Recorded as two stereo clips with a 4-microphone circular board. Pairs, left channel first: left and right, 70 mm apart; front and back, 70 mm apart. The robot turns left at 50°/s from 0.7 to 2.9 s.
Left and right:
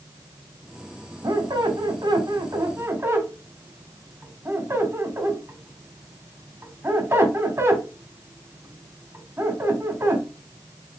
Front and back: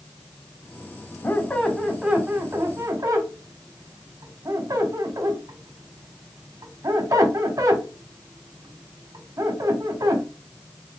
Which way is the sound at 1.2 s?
60° right.